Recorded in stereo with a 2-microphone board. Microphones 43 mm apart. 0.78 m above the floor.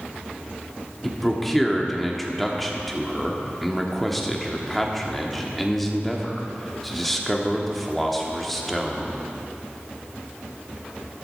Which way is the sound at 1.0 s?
5° left (ahead or behind).